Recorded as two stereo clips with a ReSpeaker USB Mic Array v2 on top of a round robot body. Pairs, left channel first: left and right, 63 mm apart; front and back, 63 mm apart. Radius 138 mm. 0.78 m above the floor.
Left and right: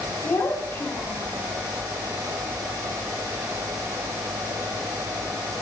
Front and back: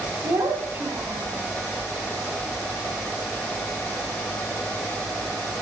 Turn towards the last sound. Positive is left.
turn(degrees=140)